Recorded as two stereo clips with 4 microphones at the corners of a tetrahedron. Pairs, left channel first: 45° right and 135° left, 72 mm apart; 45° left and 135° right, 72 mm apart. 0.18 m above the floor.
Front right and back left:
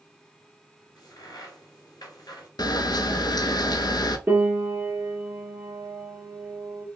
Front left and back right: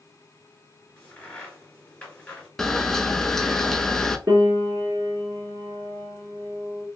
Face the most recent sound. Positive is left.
turn(degrees=-170)